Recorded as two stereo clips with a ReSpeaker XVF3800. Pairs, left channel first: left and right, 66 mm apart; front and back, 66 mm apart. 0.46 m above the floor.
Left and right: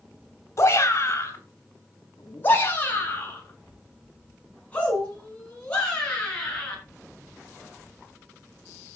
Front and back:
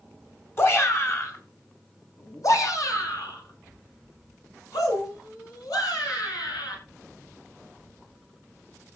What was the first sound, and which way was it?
A shout, 50° left.